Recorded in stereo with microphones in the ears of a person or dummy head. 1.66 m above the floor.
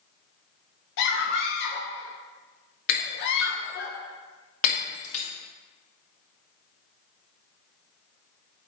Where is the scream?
65° left (ahead or behind), 1.1 m.